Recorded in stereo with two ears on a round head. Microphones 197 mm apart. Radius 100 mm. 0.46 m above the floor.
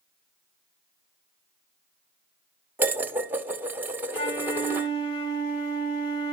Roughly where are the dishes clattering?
Centre.